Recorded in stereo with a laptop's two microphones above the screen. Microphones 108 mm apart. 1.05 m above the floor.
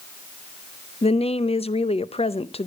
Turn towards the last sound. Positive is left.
turn(degrees=70)  # may be behind; listen again after turning